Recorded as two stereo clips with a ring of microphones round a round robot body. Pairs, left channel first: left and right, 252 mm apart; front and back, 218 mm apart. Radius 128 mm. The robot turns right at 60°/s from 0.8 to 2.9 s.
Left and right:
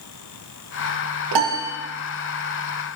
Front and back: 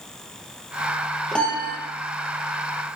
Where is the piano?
90° right, 2.5 m; by 1.8 s 60° right, 2.5 m.